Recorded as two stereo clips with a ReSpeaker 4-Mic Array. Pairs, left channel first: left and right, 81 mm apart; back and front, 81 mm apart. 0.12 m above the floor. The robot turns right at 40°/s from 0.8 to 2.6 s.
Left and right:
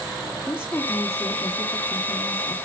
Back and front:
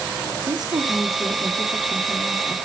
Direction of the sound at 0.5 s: 30° left.